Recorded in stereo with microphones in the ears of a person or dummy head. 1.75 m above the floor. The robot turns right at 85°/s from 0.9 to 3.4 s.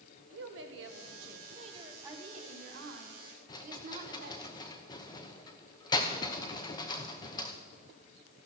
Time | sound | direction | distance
0.3 | a woman speaking | 105° right | 1.5 m
2.0 | a woman speaking | 165° right | 2 m
3.5 | a rattle | 25° left (ahead or behind) | 1.0 m